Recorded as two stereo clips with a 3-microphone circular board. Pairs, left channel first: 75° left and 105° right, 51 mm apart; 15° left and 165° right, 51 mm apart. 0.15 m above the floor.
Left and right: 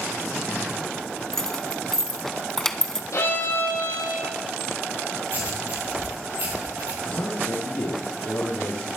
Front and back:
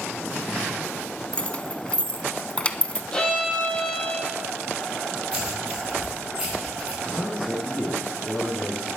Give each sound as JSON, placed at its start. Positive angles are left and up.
{"t": 1.3, "sound": "keys jangling", "azimuth_deg": 10, "distance_m": 0.7}
{"t": 3.1, "sound": "a violin", "azimuth_deg": 85, "distance_m": 5.0}
{"t": 5.3, "sound": "writing", "azimuth_deg": -100, "distance_m": 4.5}
{"t": 7.0, "sound": "a man speaking", "azimuth_deg": 90, "distance_m": 3.5}